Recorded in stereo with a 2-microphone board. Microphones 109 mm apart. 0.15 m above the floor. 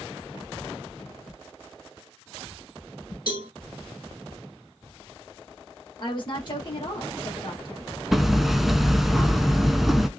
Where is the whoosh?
50° left (ahead or behind), 2 m.